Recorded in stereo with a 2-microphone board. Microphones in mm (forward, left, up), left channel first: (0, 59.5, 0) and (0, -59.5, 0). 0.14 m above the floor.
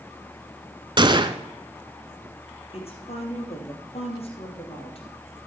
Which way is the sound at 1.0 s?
40° right (ahead or behind).